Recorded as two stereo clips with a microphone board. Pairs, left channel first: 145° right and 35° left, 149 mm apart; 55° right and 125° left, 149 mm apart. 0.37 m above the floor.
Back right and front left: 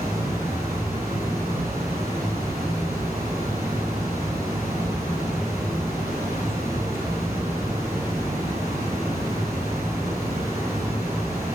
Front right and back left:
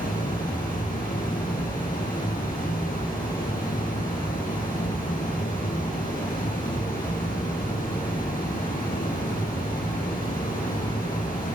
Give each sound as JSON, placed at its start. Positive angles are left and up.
{"t": 0.0, "sound": "running water", "azimuth_deg": -35, "distance_m": 8.0}